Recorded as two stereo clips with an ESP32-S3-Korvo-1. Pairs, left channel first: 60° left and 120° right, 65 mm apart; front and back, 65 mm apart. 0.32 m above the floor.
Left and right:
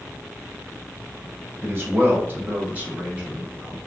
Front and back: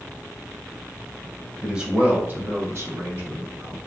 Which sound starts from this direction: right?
A man speaking, at 1.6 s.